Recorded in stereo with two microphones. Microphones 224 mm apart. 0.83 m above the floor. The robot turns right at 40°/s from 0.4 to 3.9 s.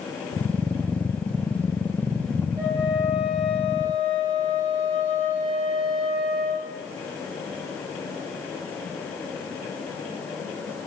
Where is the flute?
30° right, 2.5 m; by 6.7 s 20° left, 2.5 m.